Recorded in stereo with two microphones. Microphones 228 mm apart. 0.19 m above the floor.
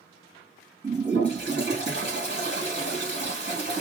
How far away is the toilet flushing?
About 2 m.